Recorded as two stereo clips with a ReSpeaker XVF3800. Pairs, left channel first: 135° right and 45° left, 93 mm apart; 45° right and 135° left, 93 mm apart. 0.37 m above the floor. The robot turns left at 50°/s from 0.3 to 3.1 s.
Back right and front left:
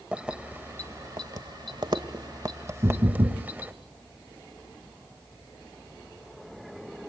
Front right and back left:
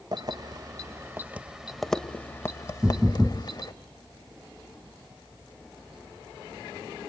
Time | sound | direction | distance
0.1 | keys jangling | 120° left | 1.1 m
2.8 | knocking | 75° left | 2 m